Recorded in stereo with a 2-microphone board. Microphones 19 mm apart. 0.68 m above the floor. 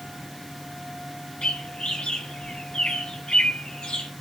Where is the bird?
75° left (ahead or behind), 1.0 m.